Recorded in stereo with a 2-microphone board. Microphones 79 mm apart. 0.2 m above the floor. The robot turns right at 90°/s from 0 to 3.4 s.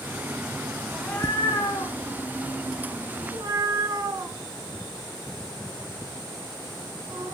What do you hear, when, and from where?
0.9 s a cat meowing: 10° left (ahead or behind), 5.5 m; by 7.3 s 55° right (ahead or behind), 5.5 m